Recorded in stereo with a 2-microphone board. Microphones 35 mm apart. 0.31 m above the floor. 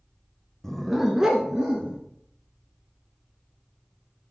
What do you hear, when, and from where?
0.6 s a dog barking: 10° left (ahead or behind), 0.7 m; by 2.0 s 25° right (ahead or behind), 1.7 m